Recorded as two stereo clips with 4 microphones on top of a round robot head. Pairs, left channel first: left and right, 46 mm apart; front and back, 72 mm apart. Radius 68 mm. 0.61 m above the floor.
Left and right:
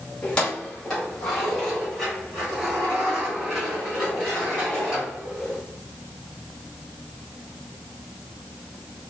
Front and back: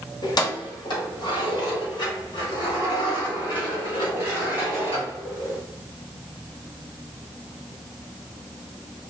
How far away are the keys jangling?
About 1.7 m.